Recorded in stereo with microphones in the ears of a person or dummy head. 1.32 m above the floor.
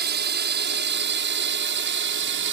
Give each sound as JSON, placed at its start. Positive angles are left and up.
{"t": 0.0, "sound": "a drone", "side_deg": -60}